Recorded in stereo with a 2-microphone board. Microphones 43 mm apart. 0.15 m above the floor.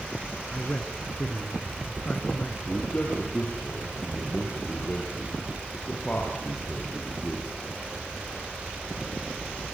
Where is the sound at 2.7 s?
35° left (ahead or behind), 4.5 m.